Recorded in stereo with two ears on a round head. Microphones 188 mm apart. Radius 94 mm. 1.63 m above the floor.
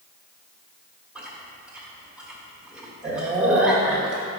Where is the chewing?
5° right (ahead or behind), 1.5 m.